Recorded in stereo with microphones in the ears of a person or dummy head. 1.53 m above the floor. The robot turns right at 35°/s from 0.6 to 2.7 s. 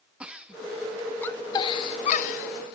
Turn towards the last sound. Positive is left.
turn(degrees=55)  # may be behind; listen again after turning